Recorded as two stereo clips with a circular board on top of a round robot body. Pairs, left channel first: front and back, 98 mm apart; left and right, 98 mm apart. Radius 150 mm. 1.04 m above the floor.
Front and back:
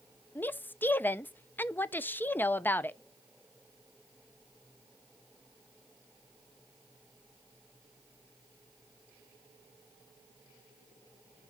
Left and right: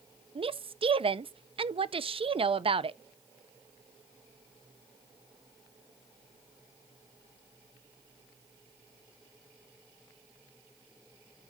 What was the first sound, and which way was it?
A woman speaking, 70° right.